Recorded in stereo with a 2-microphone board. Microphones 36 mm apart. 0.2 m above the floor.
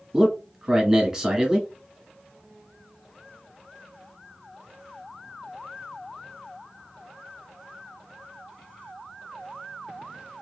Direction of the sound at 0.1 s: 10° right (ahead or behind).